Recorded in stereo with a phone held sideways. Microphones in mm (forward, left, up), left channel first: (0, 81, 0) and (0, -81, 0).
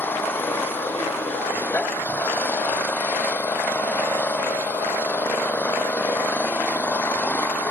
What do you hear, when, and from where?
0.0 s an engine running: 10° left (ahead or behind)